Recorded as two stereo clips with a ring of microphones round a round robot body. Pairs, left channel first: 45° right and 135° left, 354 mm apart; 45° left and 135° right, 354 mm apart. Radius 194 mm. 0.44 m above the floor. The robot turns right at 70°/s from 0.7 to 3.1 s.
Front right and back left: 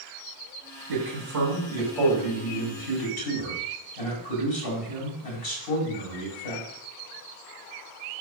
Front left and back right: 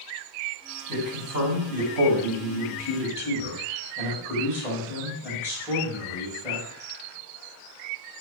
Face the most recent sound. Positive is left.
turn(degrees=-50)